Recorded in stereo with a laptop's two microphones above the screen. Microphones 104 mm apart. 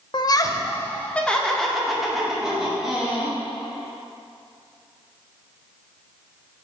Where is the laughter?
45° left (ahead or behind), 0.6 m; by 3.4 s 10° right (ahead or behind), 2 m.